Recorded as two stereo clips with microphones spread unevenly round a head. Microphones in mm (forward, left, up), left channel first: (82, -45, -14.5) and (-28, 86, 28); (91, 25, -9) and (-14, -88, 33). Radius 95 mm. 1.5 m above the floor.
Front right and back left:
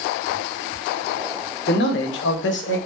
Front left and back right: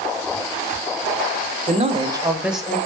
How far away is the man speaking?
About 0.7 m.